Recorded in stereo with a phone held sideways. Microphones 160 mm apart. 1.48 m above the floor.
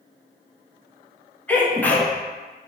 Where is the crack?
I don't hear a crack.